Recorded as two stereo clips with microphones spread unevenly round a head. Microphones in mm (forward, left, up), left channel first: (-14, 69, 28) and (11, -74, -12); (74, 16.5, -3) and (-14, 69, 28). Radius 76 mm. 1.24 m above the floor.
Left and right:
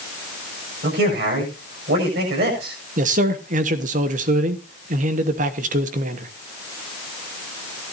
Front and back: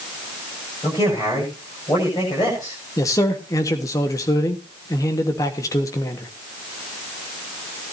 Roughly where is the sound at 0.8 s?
Right.